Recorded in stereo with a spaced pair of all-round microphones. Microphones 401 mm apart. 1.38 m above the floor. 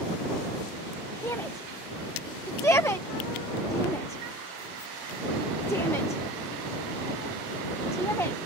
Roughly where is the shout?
Centre.